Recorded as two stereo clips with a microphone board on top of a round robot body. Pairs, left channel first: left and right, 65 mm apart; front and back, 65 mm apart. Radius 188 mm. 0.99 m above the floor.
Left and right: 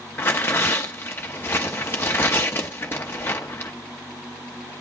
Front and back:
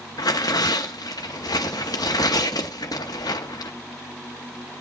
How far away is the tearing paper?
About 0.6 m.